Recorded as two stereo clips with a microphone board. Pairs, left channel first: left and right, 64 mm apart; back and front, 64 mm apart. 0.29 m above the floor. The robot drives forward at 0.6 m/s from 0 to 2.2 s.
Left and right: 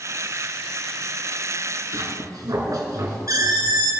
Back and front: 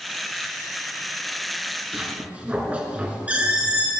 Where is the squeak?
65° right, 2.5 m.